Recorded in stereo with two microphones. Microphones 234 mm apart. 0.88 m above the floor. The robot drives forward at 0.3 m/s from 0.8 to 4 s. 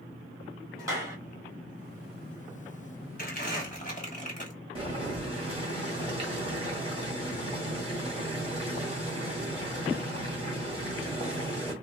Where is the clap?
15° right (ahead or behind), 1.6 m; by 1.2 s 10° right (ahead or behind), 1.7 m.